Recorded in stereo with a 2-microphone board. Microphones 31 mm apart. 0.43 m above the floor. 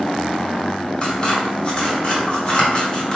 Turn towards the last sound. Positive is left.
turn(degrees=30)  # may be behind; listen again after turning